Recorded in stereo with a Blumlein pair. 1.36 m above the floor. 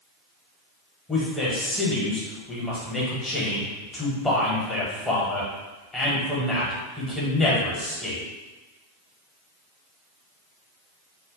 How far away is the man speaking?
About 1.1 m.